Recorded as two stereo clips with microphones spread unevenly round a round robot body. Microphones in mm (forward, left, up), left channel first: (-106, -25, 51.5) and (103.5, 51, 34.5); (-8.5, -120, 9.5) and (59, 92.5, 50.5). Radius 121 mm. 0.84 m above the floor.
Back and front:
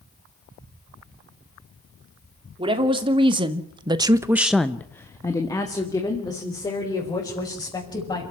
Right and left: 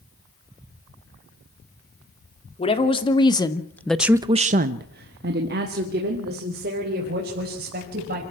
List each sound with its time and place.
2.6 s a woman speaking: 45° right, 3 m; by 8.2 s 125° left, 6 m